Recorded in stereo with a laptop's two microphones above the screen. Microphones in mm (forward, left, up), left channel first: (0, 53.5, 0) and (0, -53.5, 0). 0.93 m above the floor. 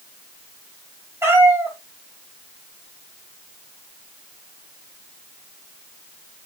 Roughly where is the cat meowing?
Right.